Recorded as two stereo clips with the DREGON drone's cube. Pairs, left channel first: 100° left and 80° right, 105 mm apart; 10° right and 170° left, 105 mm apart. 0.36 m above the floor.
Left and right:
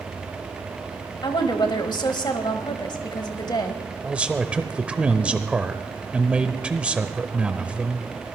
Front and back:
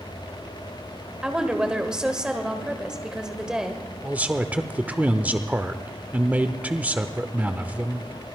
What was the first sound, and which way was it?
A woman speaking, 90° left.